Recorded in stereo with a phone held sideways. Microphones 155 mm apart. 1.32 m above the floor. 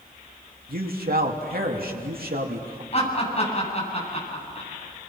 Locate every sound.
0.7 s a man speaking: 75° right (ahead or behind), 2.5 m
2.9 s laughter: 40° left (ahead or behind), 8 m